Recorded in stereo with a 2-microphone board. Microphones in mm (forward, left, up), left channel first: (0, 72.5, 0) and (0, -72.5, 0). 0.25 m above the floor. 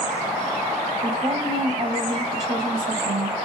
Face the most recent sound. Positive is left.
turn(degrees=-35)  # may be behind; listen again after turning